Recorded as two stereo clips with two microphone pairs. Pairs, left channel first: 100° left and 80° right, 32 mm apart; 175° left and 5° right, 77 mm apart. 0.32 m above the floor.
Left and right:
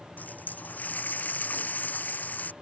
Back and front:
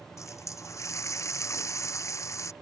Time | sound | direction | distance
0.2 | a running tap | 125° left | ?